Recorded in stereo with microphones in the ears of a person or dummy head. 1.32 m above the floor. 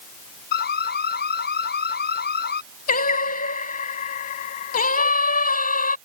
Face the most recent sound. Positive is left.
turn(degrees=45)  # may be behind; listen again after turning